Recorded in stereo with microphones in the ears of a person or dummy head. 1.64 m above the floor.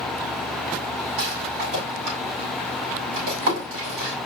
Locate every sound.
1.2 s a rattle: 80° right, 6 m